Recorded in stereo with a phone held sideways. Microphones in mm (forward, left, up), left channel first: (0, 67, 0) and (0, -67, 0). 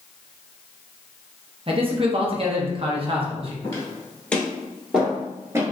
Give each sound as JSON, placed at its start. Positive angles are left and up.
{"t": 1.7, "sound": "a man speaking", "side_deg": -45, "distance_m": 0.8}
{"t": 3.6, "sound": "footsteps", "side_deg": 25, "distance_m": 1.3}